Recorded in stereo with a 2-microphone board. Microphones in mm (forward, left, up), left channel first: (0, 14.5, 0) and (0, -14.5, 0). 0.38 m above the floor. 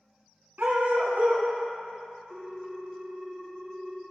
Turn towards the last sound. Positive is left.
turn(degrees=-5)  # may be behind; listen again after turning